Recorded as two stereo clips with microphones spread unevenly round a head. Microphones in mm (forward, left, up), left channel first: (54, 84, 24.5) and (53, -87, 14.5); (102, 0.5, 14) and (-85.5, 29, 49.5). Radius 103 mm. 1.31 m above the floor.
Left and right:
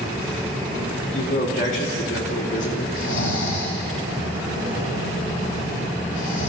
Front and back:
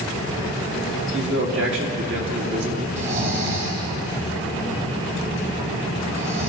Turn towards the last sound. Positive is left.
turn(degrees=120)